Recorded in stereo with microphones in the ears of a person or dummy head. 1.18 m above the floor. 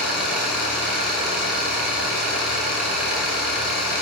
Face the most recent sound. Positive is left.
turn(degrees=-5)  # may be behind; listen again after turning